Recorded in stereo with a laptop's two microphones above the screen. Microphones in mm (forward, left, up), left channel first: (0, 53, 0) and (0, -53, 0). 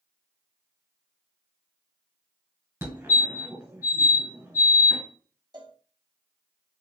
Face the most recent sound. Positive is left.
turn(degrees=-40)  # may be behind; listen again after turning